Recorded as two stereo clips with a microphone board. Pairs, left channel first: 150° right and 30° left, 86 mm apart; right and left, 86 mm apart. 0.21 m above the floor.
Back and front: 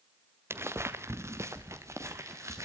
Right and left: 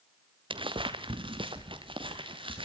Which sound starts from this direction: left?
Footsteps, at 0.5 s.